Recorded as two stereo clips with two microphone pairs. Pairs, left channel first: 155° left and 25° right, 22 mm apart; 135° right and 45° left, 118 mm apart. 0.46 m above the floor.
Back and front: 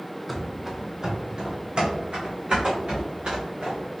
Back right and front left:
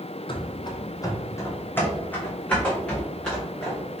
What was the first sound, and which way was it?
Running footsteps, 115° right.